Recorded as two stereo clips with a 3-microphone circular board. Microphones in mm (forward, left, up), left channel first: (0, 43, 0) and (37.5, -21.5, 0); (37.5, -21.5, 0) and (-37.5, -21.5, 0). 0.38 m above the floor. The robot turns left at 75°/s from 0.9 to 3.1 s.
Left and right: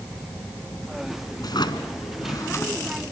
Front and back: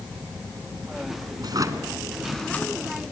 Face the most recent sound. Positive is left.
turn(degrees=30)